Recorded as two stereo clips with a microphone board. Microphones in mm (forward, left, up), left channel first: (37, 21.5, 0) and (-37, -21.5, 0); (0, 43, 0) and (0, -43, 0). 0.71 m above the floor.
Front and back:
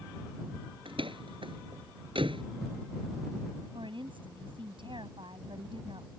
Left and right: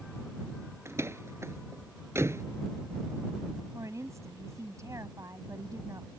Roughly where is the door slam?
Behind right.